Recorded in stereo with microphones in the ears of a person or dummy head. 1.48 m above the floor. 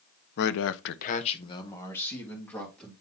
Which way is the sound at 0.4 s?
60° left (ahead or behind).